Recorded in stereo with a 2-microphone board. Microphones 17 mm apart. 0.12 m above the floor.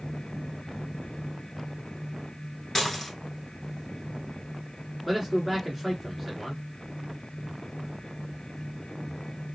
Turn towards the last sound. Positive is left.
turn(degrees=-5)  # may be behind; listen again after turning